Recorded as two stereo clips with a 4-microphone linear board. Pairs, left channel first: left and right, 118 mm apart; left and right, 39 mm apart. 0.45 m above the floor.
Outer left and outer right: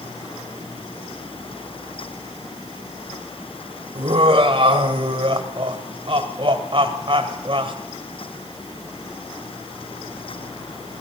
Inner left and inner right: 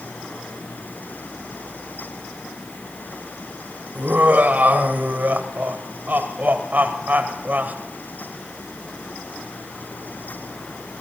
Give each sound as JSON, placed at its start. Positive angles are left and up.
{"t": 4.0, "sound": "laughter", "side_deg": -50, "distance_m": 1.7}